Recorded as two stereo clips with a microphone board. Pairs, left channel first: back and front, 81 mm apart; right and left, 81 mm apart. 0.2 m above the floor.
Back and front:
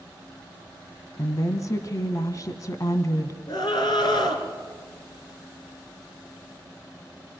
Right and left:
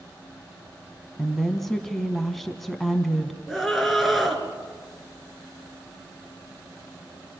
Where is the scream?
Straight behind, 3.5 m.